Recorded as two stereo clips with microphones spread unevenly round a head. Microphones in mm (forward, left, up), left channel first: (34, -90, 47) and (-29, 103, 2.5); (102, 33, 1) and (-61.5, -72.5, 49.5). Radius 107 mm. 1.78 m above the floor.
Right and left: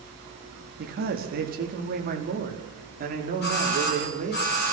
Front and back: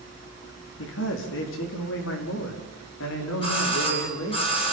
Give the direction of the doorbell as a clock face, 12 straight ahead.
1 o'clock.